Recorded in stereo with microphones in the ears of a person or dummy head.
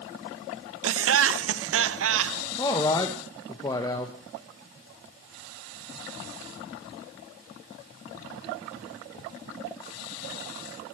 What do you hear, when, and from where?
0.8 s laughter: 75° right (ahead or behind), 0.6 m
2.6 s a man speaking: 20° left (ahead or behind), 1.0 m